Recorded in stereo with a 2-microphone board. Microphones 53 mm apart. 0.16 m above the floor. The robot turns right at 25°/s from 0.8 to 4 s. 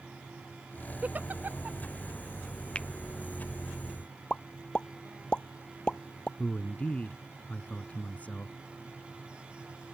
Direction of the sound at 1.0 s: 30° right (ahead or behind).